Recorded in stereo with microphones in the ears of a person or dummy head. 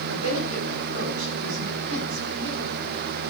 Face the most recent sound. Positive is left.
turn(degrees=-80)